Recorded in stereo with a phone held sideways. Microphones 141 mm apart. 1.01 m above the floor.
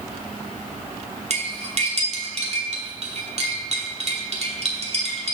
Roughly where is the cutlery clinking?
Right.